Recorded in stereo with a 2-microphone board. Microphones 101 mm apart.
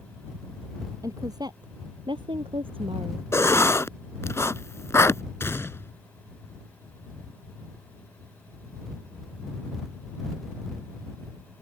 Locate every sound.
1.0 s a woman speaking: 35° right (ahead or behind); by 3.2 s 65° right (ahead or behind)
3.3 s writing: 25° left (ahead or behind)
5.4 s a gunshot: 25° left (ahead or behind)